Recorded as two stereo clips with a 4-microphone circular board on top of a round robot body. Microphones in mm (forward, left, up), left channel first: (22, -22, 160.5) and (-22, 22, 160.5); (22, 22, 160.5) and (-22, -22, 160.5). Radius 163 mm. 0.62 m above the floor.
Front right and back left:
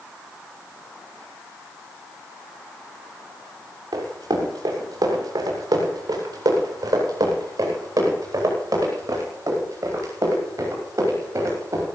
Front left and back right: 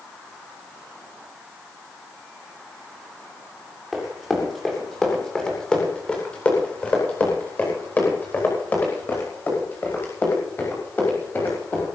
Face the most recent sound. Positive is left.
turn(degrees=95)